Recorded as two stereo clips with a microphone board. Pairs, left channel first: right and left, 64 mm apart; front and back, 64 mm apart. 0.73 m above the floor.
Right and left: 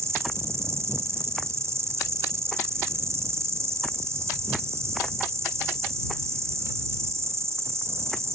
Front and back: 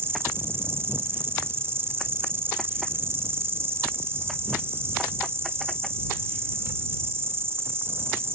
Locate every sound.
0.0 s an insect: 130° left